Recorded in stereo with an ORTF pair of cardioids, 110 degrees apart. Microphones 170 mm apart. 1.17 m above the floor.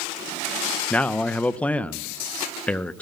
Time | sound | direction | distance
0.9 | a man speaking | 10° left | 0.7 m